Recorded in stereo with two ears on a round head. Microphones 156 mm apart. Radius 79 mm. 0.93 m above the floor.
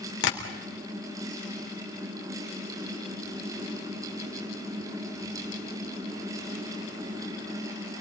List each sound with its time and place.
0.2 s tapping: 70° left (ahead or behind), 3.5 m